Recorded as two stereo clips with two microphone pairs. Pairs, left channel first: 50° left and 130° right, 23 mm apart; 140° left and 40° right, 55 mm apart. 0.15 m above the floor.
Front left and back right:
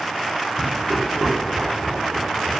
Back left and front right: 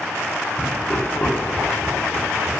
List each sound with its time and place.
0.6 s laughter: 145° right, 2.0 m; by 2.6 s straight behind, 2.5 m